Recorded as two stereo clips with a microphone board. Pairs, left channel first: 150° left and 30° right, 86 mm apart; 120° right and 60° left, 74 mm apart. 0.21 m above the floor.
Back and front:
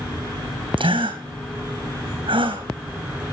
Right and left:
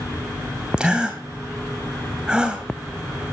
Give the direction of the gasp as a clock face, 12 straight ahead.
1 o'clock.